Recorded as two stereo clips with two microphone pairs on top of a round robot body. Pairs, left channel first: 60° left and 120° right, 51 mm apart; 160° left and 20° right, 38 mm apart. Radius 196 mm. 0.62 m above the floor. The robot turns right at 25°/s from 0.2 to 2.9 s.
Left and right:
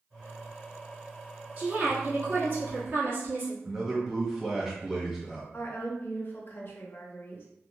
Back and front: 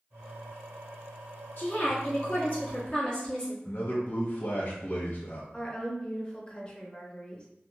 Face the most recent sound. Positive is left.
turn(degrees=90)